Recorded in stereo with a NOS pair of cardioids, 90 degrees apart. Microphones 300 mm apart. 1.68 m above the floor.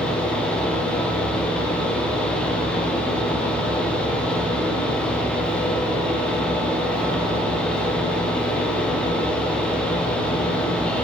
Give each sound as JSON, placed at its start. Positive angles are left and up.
{"t": 0.0, "sound": "a fan", "azimuth_deg": 5, "distance_m": 1.1}